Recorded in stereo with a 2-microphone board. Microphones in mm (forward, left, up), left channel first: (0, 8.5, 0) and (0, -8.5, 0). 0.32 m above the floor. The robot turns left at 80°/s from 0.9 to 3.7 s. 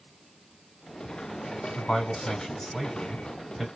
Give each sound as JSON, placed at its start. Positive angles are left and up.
{"t": 1.8, "sound": "a man speaking", "azimuth_deg": 100, "distance_m": 2.0}